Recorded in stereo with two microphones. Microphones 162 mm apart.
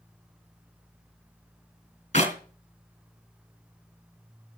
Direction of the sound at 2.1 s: 45° left (ahead or behind).